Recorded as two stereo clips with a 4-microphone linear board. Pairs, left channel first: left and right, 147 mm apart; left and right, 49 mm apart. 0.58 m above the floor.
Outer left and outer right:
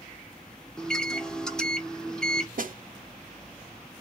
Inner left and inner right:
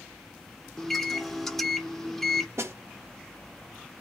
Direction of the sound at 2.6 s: 70° right (ahead or behind).